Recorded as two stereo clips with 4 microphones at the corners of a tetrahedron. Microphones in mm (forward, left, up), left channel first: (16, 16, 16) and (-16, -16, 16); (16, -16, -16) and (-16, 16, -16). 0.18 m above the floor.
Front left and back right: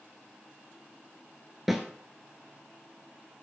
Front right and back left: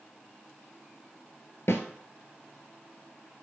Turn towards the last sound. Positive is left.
turn(degrees=-50)